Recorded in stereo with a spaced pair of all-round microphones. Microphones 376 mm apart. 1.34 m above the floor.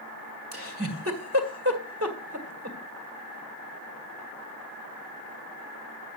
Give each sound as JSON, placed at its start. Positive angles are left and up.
{"t": 0.5, "sound": "a giggle", "side_deg": -35, "distance_m": 1.8}